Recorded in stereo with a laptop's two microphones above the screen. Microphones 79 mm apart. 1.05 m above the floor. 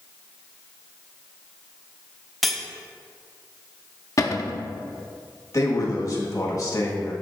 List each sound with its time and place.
2.4 s cutlery clinking: centre (ahead or behind), 0.7 m
4.2 s a cupboard door: 40° left (ahead or behind), 0.6 m
5.5 s a man speaking: 45° left (ahead or behind), 1.2 m